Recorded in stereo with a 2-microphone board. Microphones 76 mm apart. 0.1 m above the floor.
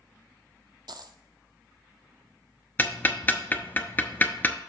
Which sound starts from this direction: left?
Ticking, at 2.8 s.